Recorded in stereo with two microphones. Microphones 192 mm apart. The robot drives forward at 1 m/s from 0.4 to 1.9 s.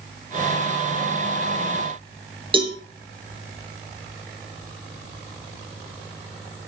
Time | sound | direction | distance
2.5 | a cowbell | 25° right (ahead or behind) | 3 m